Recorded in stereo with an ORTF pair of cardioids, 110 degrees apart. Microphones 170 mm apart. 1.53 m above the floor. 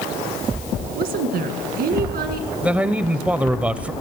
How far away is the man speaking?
About 0.6 m.